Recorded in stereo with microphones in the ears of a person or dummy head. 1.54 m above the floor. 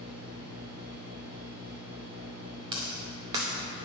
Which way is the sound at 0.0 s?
55° right (ahead or behind).